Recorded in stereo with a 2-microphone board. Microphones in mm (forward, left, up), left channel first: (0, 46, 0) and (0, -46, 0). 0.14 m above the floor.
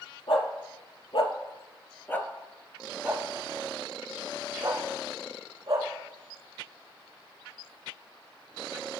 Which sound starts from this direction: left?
A dog barking, at 0.3 s.